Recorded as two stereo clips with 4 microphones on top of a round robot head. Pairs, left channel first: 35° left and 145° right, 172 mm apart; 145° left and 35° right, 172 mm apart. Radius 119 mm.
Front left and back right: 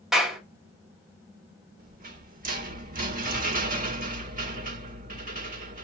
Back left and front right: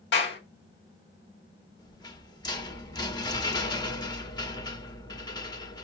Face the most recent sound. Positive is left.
turn(degrees=-155)